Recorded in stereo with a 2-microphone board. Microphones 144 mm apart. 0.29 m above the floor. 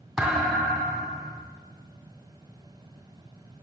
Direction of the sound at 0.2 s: 5° right (ahead or behind).